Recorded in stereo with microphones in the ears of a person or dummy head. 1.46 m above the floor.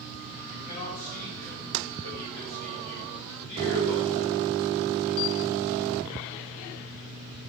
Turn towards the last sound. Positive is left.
turn(degrees=70)  # may be behind; listen again after turning